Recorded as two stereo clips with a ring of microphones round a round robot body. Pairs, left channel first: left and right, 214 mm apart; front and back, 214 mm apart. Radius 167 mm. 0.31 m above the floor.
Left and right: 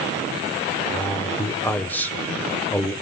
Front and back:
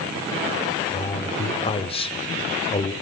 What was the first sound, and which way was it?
A man speaking, 15° left.